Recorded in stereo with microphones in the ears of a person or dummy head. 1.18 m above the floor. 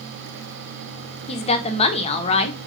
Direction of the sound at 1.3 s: 30° left (ahead or behind).